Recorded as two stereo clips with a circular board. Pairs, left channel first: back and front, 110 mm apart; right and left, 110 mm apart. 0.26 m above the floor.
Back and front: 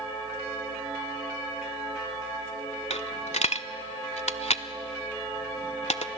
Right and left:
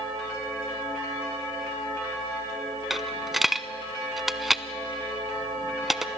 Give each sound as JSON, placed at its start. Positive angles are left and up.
{"t": 2.9, "sound": "a dropped coin", "azimuth_deg": 180, "distance_m": 0.6}